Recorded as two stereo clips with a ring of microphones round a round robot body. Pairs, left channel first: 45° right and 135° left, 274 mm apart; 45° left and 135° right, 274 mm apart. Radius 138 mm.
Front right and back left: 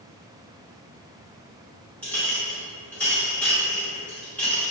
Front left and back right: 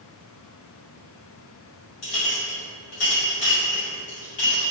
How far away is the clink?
About 1.3 m.